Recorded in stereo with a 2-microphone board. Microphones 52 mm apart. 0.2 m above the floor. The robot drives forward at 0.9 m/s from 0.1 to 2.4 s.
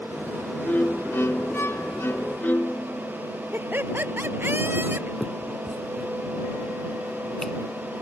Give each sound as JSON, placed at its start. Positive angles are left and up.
{"t": 0.7, "sound": "a violin", "side_deg": 30}
{"t": 3.5, "sound": "laughter", "side_deg": -40}
{"t": 5.2, "sound": "a finger snap", "side_deg": 5}